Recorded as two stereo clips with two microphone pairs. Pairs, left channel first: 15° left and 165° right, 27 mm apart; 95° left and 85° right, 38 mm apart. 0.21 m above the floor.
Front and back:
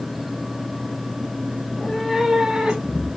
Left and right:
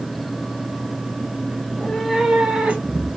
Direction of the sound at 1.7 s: 35° left.